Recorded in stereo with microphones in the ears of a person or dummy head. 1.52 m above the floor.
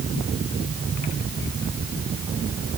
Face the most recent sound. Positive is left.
No sound to turn to.